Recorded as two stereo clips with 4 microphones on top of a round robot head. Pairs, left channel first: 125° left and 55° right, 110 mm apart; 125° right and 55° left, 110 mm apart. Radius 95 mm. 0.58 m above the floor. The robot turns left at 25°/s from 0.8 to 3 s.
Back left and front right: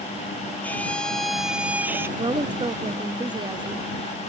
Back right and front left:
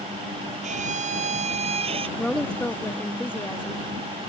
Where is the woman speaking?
40° right; by 3.9 s 60° right.